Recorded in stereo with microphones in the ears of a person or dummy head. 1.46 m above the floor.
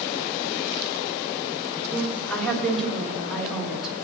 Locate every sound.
1.9 s a woman speaking: 5° left (ahead or behind), 3.5 m; by 4.0 s centre (ahead or behind), 2 m